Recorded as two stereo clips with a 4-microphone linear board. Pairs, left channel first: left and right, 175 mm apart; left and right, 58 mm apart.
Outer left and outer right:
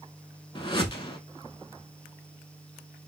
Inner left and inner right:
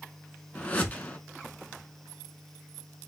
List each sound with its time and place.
0.6 s a whoosh: 30° left (ahead or behind), 0.6 m